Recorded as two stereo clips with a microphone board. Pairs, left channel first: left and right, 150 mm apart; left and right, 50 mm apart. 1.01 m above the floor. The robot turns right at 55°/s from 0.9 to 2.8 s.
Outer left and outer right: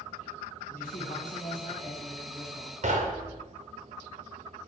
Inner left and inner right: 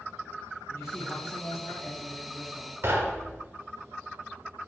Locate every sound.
0.7 s a man speaking: 80° left, 1.2 m; by 2.7 s straight behind, 1.2 m
2.8 s knocking: 50° right (ahead or behind), 0.5 m